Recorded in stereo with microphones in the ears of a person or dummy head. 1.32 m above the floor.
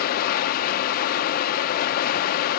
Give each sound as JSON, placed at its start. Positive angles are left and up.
{"t": 0.0, "sound": "running water", "side_deg": 45, "distance_m": 0.7}